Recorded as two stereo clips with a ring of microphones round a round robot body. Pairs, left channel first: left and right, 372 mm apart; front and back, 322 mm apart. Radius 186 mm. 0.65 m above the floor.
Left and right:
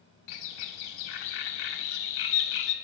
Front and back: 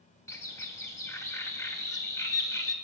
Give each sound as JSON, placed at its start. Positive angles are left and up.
{"t": 0.3, "sound": "a bird", "azimuth_deg": 80, "distance_m": 0.5}